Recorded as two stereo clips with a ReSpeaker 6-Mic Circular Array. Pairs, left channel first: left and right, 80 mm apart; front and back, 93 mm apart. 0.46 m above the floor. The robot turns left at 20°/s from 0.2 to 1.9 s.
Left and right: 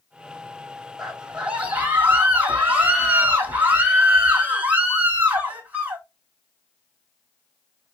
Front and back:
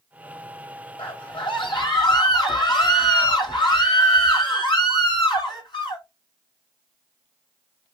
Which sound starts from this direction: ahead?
A scream, at 1.0 s.